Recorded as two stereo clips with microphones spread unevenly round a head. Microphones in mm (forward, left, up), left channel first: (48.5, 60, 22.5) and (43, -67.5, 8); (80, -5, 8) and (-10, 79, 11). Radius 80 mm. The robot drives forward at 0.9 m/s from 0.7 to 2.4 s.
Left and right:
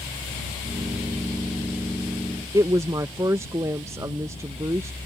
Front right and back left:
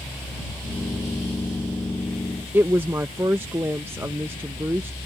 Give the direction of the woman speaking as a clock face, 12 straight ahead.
5 o'clock.